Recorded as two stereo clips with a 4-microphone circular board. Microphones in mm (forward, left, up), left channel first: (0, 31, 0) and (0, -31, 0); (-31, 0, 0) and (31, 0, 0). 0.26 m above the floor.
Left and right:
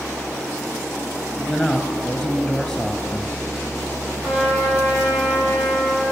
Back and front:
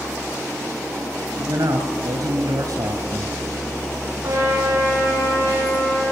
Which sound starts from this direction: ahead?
A man speaking, at 1.4 s.